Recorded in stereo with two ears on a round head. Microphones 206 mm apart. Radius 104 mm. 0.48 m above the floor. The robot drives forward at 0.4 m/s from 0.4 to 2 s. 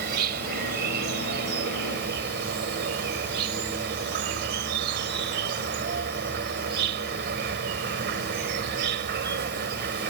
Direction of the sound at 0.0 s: 45° right (ahead or behind).